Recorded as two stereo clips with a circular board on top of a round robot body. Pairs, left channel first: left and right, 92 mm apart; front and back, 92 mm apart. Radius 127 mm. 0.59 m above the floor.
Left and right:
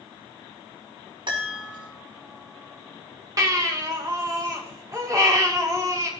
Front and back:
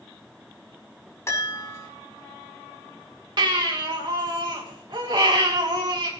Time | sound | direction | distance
1.3 | a chime | 60° right | 6 m
3.4 | a baby crying | 140° right | 3 m